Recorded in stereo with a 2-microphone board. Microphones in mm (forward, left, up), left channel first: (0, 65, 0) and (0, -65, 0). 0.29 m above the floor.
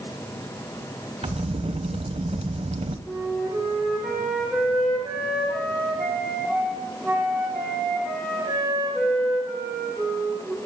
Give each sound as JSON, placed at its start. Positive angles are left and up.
{"t": 1.2, "sound": "a crack", "side_deg": -55, "distance_m": 0.7}
{"t": 3.1, "sound": "a flute", "side_deg": -5, "distance_m": 5.5}